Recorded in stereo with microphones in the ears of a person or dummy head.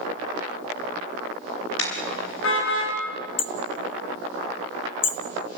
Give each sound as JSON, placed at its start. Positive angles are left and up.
{"t": 1.8, "sound": "a car horn", "side_deg": 85, "distance_m": 6.0}
{"t": 3.4, "sound": "hammering", "side_deg": 25, "distance_m": 0.8}